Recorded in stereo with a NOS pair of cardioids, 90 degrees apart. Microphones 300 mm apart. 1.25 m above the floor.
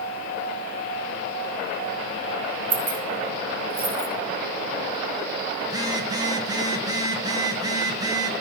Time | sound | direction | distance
2.7 | keys jangling | 70° right | 3 m
5.6 | a phone buzzing | 15° right | 1.2 m